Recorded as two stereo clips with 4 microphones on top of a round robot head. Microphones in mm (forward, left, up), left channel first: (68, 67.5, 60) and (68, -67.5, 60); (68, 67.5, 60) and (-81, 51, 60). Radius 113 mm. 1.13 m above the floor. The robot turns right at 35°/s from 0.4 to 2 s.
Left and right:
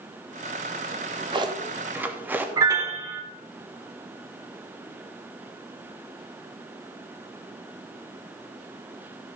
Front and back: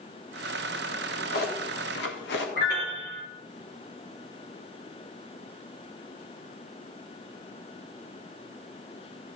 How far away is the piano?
About 1.1 m.